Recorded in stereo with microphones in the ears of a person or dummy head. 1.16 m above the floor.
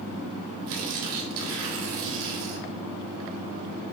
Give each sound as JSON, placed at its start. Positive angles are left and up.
{"t": 0.7, "sound": "tearing paper", "side_deg": -80, "distance_m": 2.0}